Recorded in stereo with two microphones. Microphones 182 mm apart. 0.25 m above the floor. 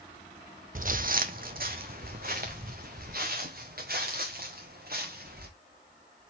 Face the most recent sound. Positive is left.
turn(degrees=-60)  # may be behind; listen again after turning